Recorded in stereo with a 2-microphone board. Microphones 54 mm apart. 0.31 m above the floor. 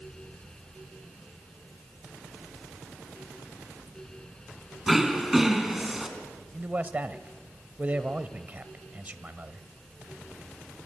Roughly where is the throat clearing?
Centre.